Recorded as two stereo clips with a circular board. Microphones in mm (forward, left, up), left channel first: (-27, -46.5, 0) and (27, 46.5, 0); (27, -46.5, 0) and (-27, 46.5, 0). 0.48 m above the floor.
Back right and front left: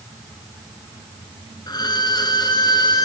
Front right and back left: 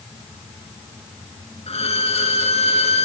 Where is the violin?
70° right, 1.4 m.